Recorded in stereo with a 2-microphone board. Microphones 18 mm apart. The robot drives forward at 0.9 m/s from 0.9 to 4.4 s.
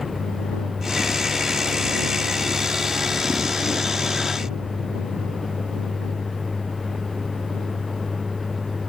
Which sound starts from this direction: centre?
A vehicle, at 0.0 s.